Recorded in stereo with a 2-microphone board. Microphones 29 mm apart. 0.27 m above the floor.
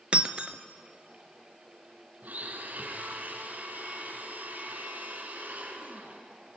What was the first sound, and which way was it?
Breaking glass, 40° right (ahead or behind).